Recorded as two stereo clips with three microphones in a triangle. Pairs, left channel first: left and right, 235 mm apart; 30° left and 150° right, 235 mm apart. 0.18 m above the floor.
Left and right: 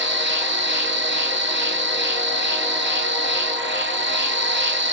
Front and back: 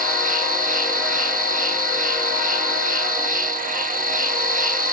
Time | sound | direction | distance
0.0 | an insect | 105° right | 0.7 m